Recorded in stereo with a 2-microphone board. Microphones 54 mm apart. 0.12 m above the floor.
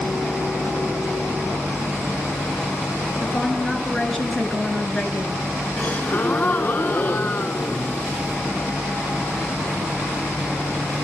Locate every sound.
3.2 s a woman speaking: 5° left (ahead or behind), 1.8 m
5.8 s a gasp: 30° left (ahead or behind), 0.5 m